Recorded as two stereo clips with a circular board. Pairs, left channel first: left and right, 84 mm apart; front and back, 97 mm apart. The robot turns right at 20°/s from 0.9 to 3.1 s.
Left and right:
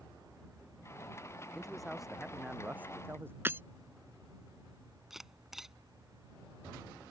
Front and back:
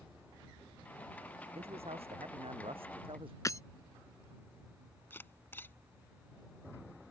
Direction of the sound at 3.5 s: 40° right.